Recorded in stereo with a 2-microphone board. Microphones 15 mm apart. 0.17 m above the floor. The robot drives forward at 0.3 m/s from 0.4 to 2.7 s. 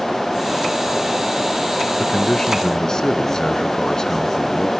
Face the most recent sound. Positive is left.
turn(degrees=45)  # may be behind; listen again after turning